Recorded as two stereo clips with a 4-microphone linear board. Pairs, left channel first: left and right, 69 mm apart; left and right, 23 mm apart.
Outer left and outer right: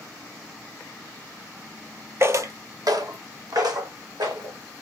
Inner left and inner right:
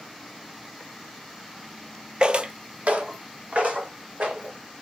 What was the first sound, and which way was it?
Footsteps, 40° right (ahead or behind).